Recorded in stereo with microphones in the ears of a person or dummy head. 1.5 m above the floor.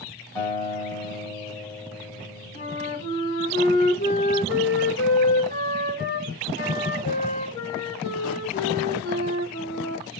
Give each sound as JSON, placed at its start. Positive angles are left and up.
{"t": 0.3, "sound": "a guitar", "side_deg": 15, "distance_m": 1.3}
{"t": 2.5, "sound": "a flute", "side_deg": 45, "distance_m": 1.1}